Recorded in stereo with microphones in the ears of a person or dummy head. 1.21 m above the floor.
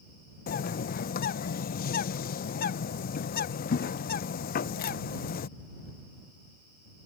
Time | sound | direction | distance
0.5 | a bird | 45° left (ahead or behind) | ?